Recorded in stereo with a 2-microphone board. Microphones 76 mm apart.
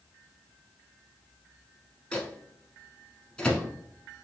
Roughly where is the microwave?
Centre.